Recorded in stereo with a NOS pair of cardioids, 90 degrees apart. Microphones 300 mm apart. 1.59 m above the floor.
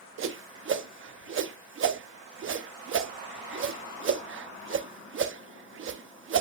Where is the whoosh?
45° right, 0.9 m.